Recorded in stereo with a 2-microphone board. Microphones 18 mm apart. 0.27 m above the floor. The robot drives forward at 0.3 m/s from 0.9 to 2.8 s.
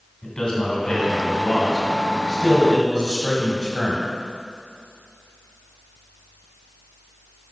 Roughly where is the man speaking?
Left.